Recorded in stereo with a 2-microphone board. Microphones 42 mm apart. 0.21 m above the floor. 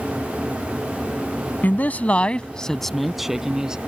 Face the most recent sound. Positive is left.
turn(degrees=-20)  # may be behind; listen again after turning